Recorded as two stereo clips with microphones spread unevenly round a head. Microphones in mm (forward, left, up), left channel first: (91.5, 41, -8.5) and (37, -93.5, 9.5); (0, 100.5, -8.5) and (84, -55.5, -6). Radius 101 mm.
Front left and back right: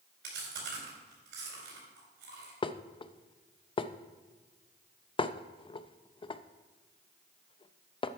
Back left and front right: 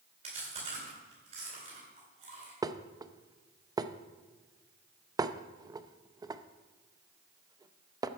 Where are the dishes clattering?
10° left, 0.6 m.